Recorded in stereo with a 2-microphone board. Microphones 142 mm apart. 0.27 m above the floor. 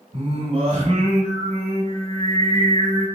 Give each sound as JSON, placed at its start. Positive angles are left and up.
{"t": 0.1, "sound": "singing", "side_deg": -45, "distance_m": 0.9}